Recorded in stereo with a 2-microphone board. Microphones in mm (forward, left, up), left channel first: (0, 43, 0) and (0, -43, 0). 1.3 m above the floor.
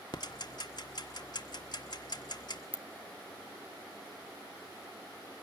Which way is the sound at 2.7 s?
20° right (ahead or behind).